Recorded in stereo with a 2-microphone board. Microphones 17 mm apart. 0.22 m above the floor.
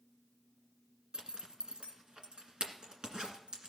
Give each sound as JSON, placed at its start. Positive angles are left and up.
{"t": 1.1, "sound": "a zipper", "side_deg": -65, "distance_m": 1.8}